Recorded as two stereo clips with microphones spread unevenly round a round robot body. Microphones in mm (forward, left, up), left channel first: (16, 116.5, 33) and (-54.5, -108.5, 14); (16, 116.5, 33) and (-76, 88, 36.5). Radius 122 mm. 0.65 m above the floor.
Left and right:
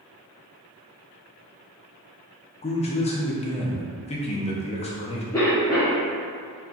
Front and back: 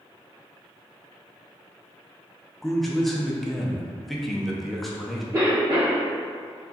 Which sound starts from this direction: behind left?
A cough, at 5.3 s.